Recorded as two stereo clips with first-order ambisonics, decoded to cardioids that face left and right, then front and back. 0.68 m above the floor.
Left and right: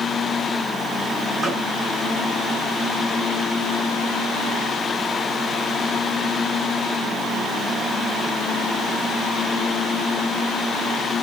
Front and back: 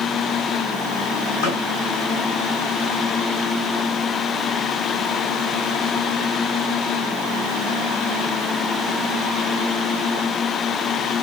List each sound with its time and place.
1.4 s a gunshot: 15° right, 9 m